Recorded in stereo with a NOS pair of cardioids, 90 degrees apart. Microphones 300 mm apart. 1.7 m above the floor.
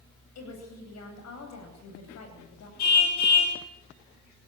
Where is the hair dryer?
I don't hear a hair dryer.